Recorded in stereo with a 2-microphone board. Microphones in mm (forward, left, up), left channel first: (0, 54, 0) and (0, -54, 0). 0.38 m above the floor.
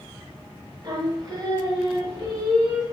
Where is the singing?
40° right (ahead or behind), 0.8 m.